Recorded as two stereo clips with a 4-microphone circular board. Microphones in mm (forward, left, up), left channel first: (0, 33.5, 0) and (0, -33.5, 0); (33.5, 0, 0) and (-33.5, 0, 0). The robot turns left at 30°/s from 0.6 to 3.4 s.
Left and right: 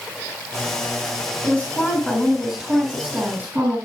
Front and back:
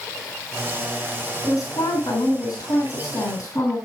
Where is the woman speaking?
30° left, 3.5 m; by 3.8 s 30° right, 3.5 m.